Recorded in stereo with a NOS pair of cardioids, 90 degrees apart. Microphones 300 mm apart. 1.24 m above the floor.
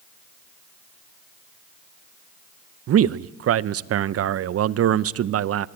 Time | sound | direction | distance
2.9 | a man speaking | 50° right | 0.7 m